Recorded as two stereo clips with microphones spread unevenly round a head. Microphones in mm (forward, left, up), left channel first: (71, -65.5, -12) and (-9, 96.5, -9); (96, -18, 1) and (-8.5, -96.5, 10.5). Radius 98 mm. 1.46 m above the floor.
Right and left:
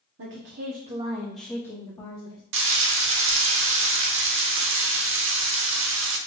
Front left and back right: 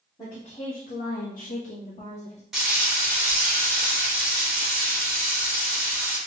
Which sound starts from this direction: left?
A woman speaking, at 0.2 s.